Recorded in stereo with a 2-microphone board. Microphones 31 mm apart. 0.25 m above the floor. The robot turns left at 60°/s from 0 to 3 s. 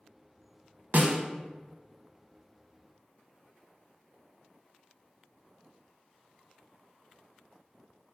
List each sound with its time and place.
0.9 s a snare drum: 60° right (ahead or behind), 0.5 m